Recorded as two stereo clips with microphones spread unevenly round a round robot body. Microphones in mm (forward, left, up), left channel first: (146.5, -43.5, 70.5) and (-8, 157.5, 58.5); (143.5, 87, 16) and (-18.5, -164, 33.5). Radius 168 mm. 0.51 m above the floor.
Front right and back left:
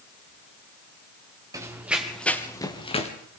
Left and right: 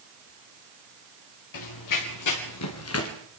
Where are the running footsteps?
50° left, 3.5 m; by 3.1 s 10° left, 3.5 m.